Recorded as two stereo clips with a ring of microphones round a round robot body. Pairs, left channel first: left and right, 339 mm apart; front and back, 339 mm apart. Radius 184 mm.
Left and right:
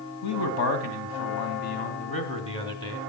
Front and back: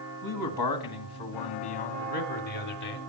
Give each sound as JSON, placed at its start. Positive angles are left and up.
{"t": 0.2, "sound": "a man speaking", "azimuth_deg": 45, "distance_m": 3.0}